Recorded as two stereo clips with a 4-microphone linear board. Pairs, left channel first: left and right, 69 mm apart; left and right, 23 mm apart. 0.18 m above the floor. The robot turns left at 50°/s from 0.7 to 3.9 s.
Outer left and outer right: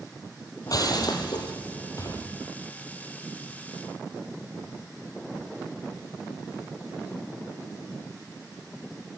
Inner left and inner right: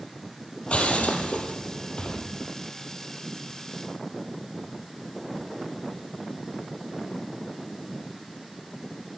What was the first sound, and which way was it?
Breaking glass, 60° left (ahead or behind).